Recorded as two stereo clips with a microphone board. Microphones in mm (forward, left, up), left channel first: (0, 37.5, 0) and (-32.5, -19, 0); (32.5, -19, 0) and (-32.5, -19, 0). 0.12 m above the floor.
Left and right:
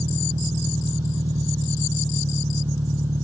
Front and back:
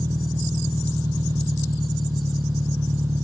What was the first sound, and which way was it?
An engine running, 130° right.